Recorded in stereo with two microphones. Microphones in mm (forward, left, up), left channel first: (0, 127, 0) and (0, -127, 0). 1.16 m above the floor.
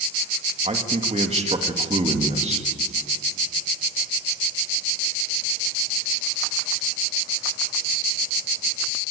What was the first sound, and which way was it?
A man speaking, 25° right (ahead or behind).